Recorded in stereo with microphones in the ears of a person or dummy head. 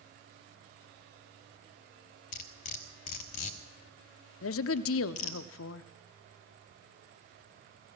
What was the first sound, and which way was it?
Cutlery clinking, 45° left (ahead or behind).